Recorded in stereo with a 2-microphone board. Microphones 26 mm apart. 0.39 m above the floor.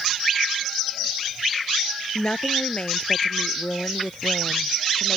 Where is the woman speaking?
45° left (ahead or behind); by 5.2 s 65° left (ahead or behind).